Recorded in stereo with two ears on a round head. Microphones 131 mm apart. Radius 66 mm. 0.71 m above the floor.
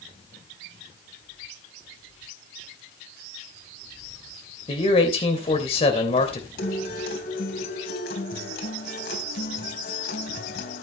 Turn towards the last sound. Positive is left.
turn(degrees=80)